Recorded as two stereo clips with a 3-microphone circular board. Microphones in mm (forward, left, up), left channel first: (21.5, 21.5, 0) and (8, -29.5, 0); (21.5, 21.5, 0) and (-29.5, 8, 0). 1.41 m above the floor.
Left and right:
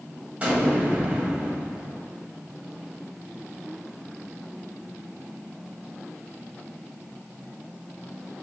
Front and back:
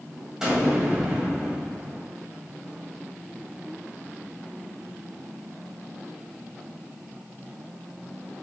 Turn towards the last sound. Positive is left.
turn(degrees=-100)